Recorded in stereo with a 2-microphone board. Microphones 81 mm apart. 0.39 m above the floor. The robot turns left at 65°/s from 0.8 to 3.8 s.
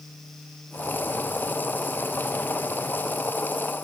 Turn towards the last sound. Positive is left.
No sound to turn to.